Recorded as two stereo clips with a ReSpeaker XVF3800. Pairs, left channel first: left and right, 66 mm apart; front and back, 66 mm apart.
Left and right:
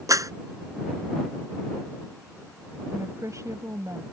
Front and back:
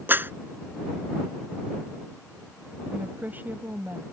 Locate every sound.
0.1 s a clap: 120° right
2.9 s a woman speaking: 120° right